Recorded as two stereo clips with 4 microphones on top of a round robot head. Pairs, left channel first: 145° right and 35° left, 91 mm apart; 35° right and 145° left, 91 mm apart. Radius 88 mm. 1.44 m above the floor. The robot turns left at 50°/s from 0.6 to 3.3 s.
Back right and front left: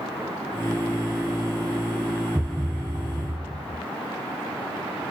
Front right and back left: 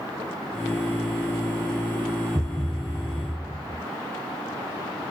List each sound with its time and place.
2.4 s a thud: 120° left; by 3.8 s 75° left